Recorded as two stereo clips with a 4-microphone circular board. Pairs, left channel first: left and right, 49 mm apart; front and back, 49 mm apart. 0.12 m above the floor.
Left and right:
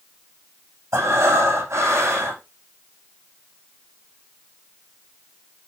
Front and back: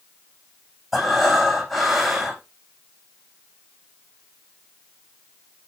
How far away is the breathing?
About 8 m.